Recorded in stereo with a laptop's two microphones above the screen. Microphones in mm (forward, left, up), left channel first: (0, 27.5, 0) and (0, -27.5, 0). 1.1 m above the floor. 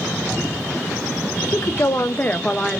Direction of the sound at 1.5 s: 45° left (ahead or behind).